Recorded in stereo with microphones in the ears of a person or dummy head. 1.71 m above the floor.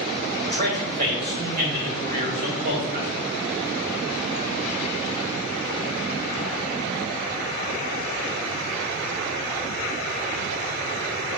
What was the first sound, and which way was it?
A man speaking, 50° right (ahead or behind).